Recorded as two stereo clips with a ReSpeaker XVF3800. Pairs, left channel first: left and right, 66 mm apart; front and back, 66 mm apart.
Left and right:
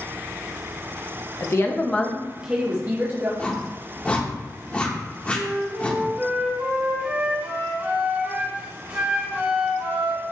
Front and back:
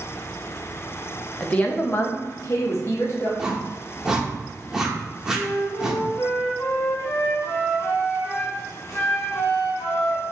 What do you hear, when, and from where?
1.4 s a woman speaking: 70° left, 0.7 m; by 3.3 s 45° right, 1.0 m
3.4 s a whoosh: 115° left, 0.7 m
5.3 s a flute: 25° right, 1.6 m